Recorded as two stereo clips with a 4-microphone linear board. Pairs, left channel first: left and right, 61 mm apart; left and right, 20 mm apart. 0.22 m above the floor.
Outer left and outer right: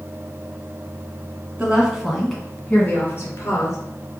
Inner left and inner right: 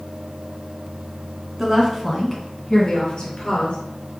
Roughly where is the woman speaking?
Right.